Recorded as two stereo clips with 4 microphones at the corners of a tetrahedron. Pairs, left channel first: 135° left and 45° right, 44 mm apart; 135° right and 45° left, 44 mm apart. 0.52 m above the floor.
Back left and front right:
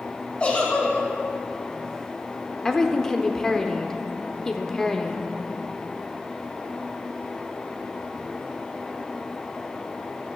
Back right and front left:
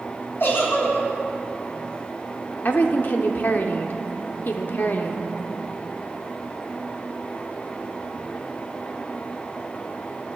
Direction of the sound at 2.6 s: 150° right.